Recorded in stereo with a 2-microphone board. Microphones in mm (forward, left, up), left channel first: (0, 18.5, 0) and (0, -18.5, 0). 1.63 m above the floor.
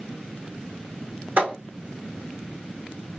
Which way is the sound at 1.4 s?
50° right (ahead or behind).